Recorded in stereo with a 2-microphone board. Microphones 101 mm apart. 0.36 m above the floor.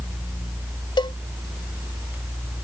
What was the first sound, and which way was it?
A cowbell, 50° left (ahead or behind).